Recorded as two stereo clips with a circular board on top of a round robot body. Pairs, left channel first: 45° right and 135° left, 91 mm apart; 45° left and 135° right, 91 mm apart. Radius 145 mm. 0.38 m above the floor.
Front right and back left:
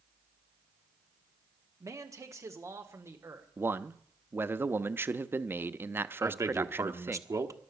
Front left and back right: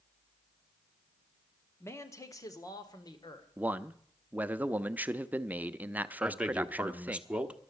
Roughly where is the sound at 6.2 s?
Behind left.